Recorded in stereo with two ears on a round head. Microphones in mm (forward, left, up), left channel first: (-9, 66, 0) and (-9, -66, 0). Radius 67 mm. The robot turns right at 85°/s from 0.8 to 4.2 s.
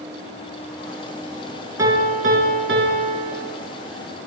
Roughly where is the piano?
Behind.